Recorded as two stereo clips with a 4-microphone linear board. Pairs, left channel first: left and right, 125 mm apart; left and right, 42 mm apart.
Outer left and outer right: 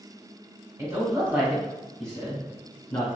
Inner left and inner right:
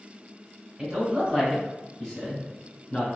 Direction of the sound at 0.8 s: 25° right (ahead or behind).